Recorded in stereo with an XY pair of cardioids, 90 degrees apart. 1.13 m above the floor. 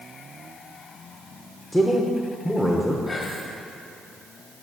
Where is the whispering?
45° left, 1.7 m.